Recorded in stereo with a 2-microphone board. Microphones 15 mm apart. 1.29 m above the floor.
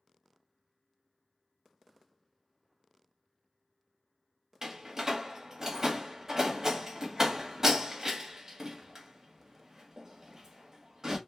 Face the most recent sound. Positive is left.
turn(degrees=-35)  # may be behind; listen again after turning